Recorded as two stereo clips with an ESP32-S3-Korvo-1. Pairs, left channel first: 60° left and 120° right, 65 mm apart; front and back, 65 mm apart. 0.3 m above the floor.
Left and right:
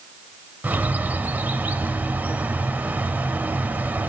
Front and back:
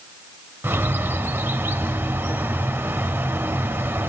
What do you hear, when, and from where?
0.6 s a bird: 160° right, 0.6 m